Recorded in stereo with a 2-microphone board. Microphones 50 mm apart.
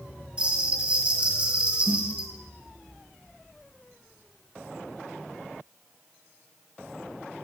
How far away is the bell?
About 1.9 m.